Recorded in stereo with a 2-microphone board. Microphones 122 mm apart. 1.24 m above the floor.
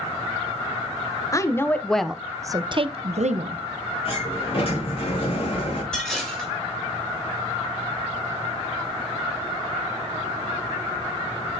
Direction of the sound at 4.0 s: 50° left (ahead or behind).